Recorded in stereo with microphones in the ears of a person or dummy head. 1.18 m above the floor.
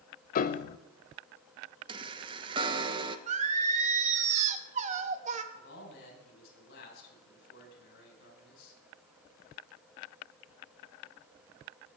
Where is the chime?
35° right (ahead or behind), 1.0 m.